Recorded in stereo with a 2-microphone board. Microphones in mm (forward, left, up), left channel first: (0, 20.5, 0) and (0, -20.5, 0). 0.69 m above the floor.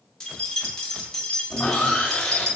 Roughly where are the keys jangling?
Centre.